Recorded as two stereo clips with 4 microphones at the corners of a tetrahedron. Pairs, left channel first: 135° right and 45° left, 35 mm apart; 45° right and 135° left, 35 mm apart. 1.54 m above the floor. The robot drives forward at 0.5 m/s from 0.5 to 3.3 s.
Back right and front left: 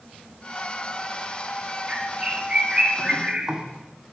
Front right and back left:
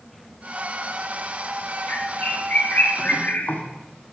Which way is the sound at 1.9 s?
15° right.